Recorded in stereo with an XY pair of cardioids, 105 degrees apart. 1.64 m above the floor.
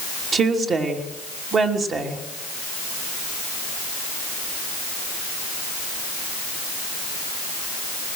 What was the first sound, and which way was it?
A woman speaking, 50° right.